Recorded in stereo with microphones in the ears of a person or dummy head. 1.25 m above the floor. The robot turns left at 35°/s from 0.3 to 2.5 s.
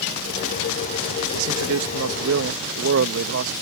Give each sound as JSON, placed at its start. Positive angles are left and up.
{"t": 1.3, "sound": "a man speaking", "azimuth_deg": -70}